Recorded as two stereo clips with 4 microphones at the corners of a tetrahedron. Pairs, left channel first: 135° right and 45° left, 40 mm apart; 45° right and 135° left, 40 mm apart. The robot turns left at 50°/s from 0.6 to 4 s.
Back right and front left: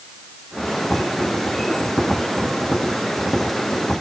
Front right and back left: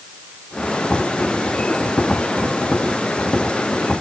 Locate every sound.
Only background noise.